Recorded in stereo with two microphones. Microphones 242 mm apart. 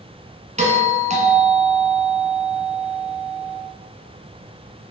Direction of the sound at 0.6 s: 30° right (ahead or behind).